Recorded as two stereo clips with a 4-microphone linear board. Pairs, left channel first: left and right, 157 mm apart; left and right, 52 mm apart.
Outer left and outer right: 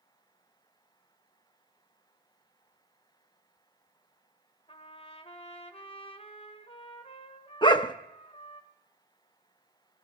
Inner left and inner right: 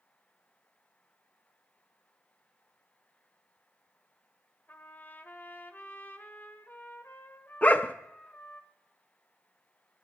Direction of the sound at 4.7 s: 35° left (ahead or behind).